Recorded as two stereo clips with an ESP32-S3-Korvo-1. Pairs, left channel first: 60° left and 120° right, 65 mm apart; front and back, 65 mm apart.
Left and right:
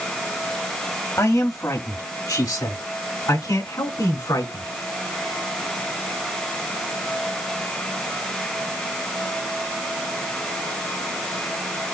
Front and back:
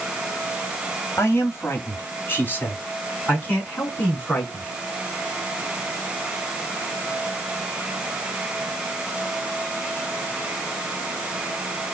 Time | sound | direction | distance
1.2 | a man speaking | 35° left | 1.6 m